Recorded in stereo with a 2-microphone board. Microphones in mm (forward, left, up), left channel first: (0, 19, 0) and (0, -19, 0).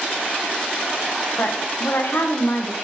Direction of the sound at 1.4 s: 80° left.